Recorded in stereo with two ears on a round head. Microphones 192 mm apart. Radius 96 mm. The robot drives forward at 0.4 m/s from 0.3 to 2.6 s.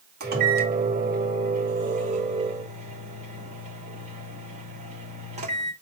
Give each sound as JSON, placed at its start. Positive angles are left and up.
{"t": 0.2, "sound": "a microwave", "side_deg": -50, "distance_m": 2.0}